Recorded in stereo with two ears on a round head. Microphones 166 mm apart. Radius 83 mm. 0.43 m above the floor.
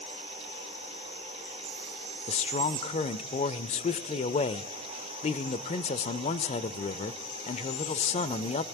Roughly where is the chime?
No chime in this recording.